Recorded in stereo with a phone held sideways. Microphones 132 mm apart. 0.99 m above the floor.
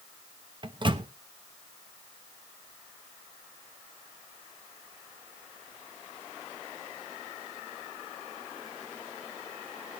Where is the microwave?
35° right (ahead or behind), 1.0 m.